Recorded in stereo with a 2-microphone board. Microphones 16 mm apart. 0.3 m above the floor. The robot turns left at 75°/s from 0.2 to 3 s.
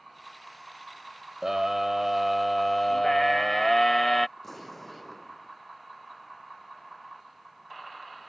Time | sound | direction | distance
1.4 | a scream | 30° right (ahead or behind) | ?
4.4 | an explosion | 15° left (ahead or behind) | ?